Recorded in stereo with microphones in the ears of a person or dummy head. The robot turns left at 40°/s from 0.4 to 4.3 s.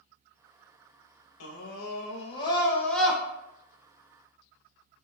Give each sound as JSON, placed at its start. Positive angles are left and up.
{"t": 1.4, "sound": "a scream", "azimuth_deg": 70, "distance_m": 0.6}